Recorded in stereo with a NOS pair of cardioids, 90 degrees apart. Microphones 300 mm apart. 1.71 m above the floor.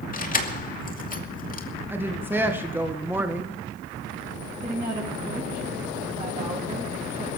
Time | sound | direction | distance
0.1 | keys jangling | 30° left | 2.5 m
1.9 | a woman speaking | 5° right | 2 m
4.6 | a woman speaking | 15° right | 7.5 m